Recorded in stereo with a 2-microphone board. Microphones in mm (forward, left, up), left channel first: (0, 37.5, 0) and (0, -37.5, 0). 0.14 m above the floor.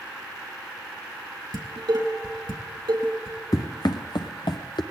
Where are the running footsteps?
50° left (ahead or behind), 0.8 m; by 4.8 s 80° left, 1.0 m.